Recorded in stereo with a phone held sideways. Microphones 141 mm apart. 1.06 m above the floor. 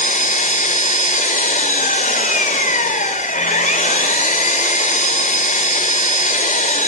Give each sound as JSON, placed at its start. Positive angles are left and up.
{"t": 0.0, "sound": "an engine running", "side_deg": 75, "distance_m": 3.0}